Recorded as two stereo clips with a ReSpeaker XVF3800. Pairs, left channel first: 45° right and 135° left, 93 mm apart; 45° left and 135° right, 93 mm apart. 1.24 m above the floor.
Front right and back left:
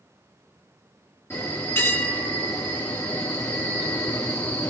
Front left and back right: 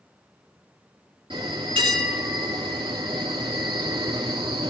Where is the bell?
110° right, 3 m.